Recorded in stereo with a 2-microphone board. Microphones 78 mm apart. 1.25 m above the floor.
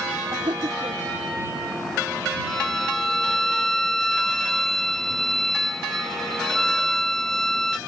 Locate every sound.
0.3 s laughter: 80° right
2.5 s a violin: 5° left (ahead or behind)